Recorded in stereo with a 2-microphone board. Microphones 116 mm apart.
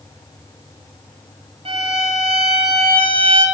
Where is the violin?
60° right (ahead or behind), 2.5 m.